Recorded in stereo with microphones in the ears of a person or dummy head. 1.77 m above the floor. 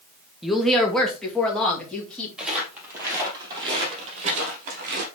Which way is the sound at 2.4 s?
5° right (ahead or behind).